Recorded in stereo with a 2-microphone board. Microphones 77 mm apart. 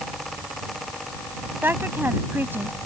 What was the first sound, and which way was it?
A woman speaking, 25° right (ahead or behind).